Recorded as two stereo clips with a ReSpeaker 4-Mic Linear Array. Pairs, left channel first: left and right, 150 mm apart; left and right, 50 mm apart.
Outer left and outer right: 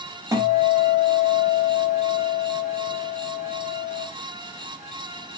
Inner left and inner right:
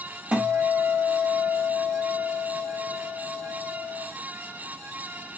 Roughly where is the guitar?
Right.